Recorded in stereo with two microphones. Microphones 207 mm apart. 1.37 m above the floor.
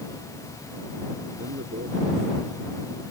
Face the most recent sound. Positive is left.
turn(degrees=-85)